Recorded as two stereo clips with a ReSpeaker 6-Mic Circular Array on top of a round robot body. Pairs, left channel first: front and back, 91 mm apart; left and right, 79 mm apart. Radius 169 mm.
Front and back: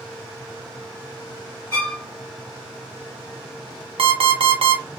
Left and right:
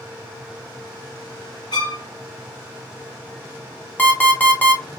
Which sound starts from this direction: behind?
An alarm clock, at 4.0 s.